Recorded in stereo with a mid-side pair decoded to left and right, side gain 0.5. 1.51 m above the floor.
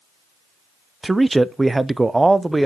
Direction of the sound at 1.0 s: 15° right.